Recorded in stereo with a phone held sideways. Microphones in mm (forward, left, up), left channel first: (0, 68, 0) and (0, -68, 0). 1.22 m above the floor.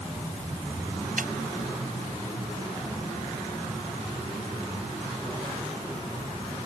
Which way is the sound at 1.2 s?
85° right.